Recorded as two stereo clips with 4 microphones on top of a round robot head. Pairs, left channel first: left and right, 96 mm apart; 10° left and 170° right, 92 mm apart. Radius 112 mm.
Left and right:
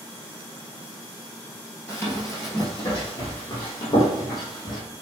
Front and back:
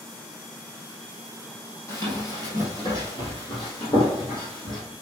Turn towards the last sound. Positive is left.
turn(degrees=45)